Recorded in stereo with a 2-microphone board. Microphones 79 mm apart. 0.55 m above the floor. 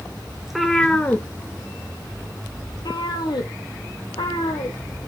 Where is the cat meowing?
5° right (ahead or behind), 0.8 m; by 5.1 s 80° left, 2.5 m.